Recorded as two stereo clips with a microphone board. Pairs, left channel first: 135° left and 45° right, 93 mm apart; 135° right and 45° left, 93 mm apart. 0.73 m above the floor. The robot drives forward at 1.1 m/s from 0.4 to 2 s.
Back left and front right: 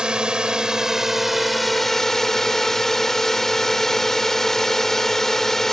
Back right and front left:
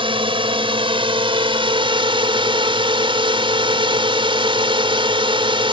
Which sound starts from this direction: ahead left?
A drone, at 0.0 s.